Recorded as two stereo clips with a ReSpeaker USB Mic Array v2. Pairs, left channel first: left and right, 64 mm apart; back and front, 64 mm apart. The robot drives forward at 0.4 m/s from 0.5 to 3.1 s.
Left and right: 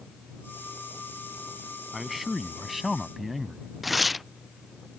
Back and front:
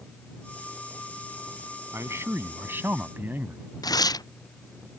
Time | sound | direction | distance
1.9 | a man speaking | 5° right | ?
3.8 | tearing paper | straight behind | ?